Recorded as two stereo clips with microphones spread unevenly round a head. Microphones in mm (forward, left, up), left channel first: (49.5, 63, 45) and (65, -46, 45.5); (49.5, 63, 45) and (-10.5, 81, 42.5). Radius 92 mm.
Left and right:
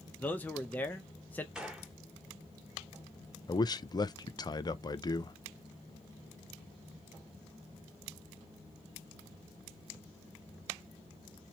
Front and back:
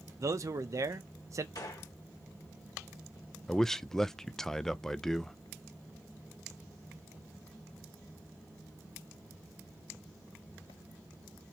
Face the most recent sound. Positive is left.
turn(degrees=65)